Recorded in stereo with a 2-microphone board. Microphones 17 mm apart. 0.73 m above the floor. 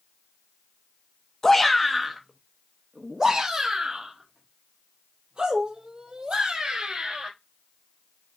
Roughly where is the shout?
Centre.